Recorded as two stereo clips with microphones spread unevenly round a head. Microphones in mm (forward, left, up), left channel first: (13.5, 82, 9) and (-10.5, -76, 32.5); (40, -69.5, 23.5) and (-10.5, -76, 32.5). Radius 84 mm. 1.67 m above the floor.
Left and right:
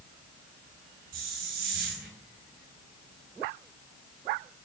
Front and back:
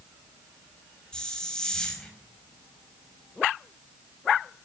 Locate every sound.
1.1 s a hiss: 70° right, 5 m